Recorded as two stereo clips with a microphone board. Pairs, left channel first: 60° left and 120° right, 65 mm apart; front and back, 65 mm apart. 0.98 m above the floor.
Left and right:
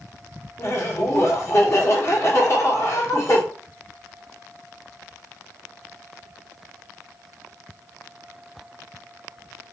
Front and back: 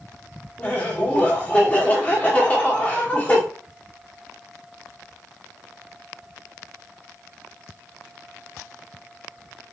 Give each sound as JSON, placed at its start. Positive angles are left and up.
{"t": 0.6, "sound": "laughter", "azimuth_deg": 60, "distance_m": 1.0}